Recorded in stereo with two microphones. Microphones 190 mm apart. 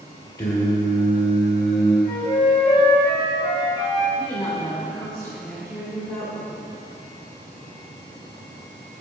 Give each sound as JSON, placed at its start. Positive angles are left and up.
{"t": 0.4, "sound": "singing", "side_deg": 20, "distance_m": 2.0}
{"t": 2.0, "sound": "a flute", "side_deg": 25, "distance_m": 2.0}
{"t": 4.2, "sound": "a woman speaking", "side_deg": 15, "distance_m": 2.5}